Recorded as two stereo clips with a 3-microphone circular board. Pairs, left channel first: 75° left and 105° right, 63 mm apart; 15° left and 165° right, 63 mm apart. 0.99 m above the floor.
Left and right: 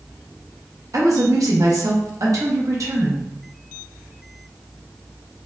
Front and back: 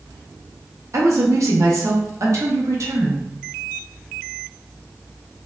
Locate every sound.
0.9 s a woman speaking: 130° right, 0.9 m